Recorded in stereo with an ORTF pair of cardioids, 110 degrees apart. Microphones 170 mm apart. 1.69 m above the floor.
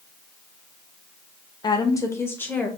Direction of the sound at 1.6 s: 25° left.